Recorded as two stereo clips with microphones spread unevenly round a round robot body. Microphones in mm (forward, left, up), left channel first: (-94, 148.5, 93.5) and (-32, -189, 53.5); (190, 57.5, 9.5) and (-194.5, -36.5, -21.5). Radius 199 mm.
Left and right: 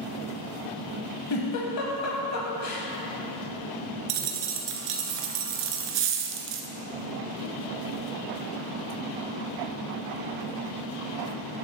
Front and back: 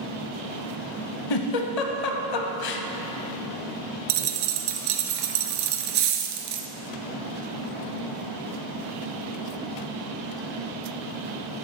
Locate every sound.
1.3 s a giggle: 50° left, 0.6 m
4.1 s a dropped coin: 120° right, 0.6 m